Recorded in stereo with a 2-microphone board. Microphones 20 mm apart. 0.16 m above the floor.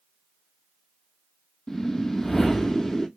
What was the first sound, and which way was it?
A whoosh, 25° left (ahead or behind).